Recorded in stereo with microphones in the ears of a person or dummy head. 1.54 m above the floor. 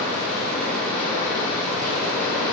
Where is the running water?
15° left (ahead or behind), 1.2 m.